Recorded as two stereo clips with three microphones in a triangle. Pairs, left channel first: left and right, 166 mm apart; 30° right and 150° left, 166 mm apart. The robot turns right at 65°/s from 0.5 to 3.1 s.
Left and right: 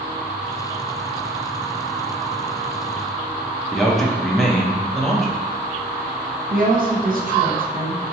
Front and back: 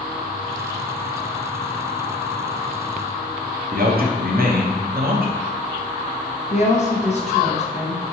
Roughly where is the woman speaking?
Right.